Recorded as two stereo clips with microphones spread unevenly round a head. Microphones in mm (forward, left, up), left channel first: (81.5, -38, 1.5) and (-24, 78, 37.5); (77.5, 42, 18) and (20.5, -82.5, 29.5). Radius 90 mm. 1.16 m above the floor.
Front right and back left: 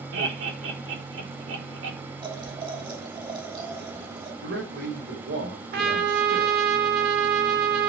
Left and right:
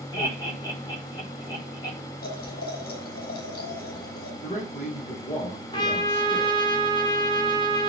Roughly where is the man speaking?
Behind left.